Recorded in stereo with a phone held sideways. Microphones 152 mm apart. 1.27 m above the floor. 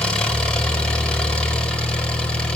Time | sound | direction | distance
0.0 | an engine running | 5° left (ahead or behind) | 4.5 m